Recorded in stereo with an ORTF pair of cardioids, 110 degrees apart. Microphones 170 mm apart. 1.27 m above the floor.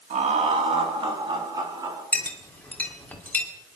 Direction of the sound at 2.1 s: 10° left.